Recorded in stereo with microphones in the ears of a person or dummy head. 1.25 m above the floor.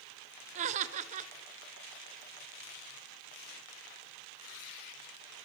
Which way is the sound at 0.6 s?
40° right (ahead or behind).